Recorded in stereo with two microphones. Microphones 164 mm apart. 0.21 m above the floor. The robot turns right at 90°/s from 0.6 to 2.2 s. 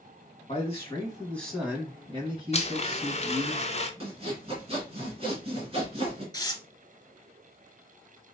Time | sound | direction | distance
0.5 | a man speaking | 100° left | 1.6 m
2.5 | a blender | 40° left (ahead or behind) | 0.5 m
4.0 | sawing | 35° right (ahead or behind) | 1.8 m
6.3 | tearing paper | 25° left (ahead or behind) | 0.8 m